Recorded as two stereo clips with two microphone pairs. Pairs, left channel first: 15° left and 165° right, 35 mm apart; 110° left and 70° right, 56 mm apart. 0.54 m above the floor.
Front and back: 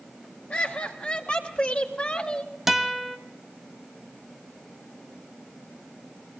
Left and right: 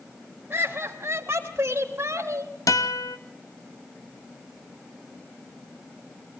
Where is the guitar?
115° left, 1.4 m.